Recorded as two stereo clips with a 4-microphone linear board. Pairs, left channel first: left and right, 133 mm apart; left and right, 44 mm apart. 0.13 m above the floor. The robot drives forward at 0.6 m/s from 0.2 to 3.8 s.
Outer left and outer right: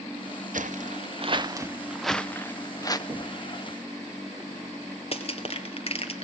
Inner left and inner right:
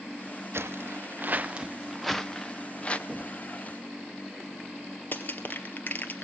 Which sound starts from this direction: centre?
Knocking, at 3.1 s.